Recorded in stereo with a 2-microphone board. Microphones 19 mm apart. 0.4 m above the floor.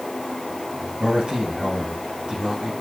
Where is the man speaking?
70° right (ahead or behind), 3 m.